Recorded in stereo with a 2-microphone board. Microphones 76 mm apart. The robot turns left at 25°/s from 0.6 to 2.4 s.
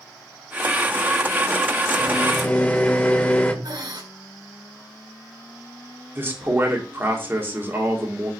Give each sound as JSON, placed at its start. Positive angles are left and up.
{"t": 2.0, "sound": "a microwave", "side_deg": 15, "distance_m": 1.0}
{"t": 3.6, "sound": "breathing", "side_deg": -75, "distance_m": 2.0}
{"t": 6.2, "sound": "a man speaking", "side_deg": -30, "distance_m": 1.9}